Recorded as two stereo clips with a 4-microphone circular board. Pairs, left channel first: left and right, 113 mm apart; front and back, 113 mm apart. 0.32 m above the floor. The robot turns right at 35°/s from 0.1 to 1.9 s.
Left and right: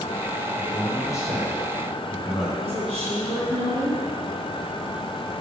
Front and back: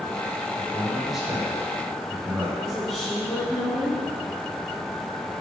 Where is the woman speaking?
85° right, 2.5 m.